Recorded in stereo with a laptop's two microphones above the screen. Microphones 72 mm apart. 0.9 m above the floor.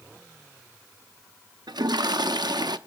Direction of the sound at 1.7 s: 75° right (ahead or behind).